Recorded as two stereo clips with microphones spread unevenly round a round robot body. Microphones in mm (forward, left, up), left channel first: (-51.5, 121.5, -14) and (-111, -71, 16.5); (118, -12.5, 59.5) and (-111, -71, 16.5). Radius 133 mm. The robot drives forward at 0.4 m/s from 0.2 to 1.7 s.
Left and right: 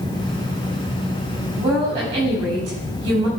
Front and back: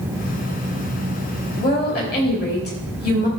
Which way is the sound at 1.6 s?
35° right.